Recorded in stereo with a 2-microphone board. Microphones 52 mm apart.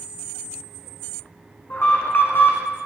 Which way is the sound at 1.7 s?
50° left (ahead or behind).